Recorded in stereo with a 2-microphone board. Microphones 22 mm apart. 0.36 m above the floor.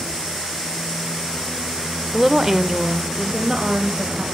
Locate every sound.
2.1 s a woman speaking: 5° right (ahead or behind), 0.9 m; by 4.2 s 30° right (ahead or behind), 2 m